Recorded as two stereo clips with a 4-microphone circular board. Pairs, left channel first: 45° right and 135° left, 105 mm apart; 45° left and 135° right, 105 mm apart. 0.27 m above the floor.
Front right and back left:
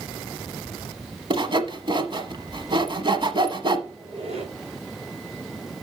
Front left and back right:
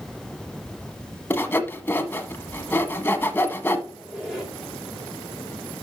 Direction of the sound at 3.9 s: 140° left.